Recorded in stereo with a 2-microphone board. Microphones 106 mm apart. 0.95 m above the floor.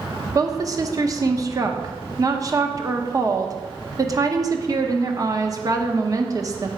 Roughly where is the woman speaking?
Right.